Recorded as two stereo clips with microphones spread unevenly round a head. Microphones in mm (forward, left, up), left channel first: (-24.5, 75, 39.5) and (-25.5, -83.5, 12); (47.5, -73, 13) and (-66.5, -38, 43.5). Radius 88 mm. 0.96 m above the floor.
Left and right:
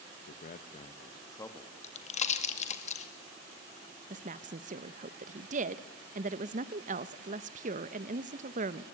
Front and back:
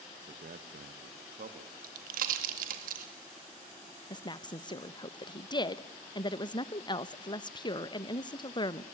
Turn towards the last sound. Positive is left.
turn(degrees=-60)